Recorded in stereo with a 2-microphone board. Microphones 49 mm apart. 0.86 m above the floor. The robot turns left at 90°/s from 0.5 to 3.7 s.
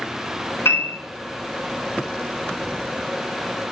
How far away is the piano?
About 3 m.